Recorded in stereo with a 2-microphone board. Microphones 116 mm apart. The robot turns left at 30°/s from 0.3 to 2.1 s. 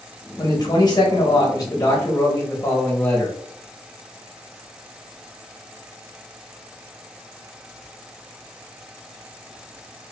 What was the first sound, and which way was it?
A man speaking, 105° left.